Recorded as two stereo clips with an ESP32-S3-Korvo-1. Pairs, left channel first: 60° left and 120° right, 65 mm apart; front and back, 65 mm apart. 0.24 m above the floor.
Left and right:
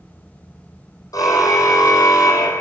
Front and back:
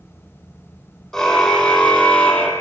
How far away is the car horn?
About 4 m.